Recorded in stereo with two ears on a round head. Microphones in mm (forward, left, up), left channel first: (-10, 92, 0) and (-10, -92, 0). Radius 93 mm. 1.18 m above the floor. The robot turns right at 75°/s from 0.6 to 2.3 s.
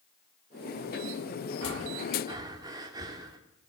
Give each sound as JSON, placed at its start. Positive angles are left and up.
{"t": 1.6, "sound": "breathing", "azimuth_deg": -70, "distance_m": 3.0}